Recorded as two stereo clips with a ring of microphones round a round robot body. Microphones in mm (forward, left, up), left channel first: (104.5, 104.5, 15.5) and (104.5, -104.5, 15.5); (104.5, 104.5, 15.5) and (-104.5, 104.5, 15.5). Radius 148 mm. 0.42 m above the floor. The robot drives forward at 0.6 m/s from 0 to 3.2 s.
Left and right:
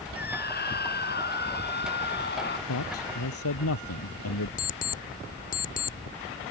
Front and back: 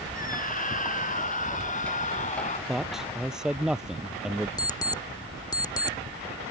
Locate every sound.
0.1 s a scream: 50° left; by 2.6 s 55° left
2.7 s a man speaking: 90° left; by 4.5 s 95° left
4.6 s an alarm clock: 65° left